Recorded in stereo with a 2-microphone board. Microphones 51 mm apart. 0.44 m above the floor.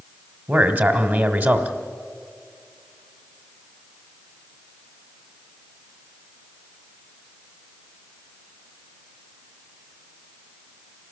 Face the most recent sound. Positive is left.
turn(degrees=-40)  # may be behind; listen again after turning